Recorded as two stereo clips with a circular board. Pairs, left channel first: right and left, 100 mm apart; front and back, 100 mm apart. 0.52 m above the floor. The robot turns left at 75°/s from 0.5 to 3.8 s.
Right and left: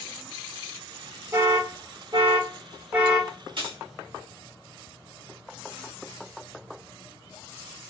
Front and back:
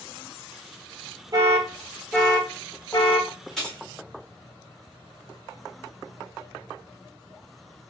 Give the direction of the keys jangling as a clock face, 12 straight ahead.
9 o'clock.